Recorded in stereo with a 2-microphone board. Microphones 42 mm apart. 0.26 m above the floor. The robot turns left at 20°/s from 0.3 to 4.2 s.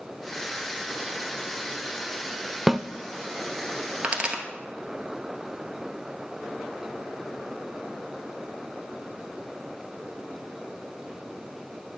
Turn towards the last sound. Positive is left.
turn(degrees=-20)  # may be behind; listen again after turning